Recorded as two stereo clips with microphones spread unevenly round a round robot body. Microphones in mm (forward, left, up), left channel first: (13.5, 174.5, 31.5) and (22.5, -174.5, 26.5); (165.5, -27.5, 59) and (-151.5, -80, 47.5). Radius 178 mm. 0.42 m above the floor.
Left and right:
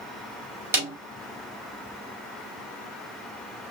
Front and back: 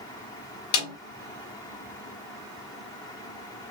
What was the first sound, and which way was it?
A snare drum, 5° right.